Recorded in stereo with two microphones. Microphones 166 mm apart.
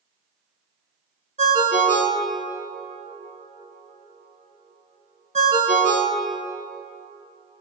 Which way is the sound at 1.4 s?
50° right (ahead or behind).